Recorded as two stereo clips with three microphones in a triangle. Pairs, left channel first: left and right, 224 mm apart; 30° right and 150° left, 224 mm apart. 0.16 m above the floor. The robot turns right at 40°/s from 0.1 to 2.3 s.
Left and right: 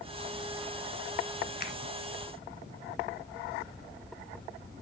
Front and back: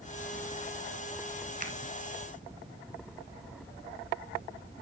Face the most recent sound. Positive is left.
turn(degrees=140)